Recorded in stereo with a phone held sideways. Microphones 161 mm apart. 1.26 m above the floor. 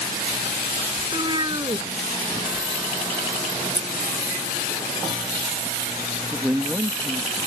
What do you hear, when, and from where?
1.0 s a cat meowing: 30° right (ahead or behind)
2.3 s a phone buzzing: 20° right (ahead or behind)
3.8 s scissors: 30° left (ahead or behind)
6.3 s a man speaking: 10° right (ahead or behind)